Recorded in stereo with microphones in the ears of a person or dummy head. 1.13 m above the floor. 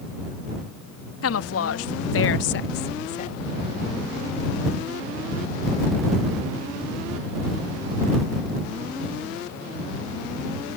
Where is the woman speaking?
75° left (ahead or behind); by 3.3 s 30° left (ahead or behind).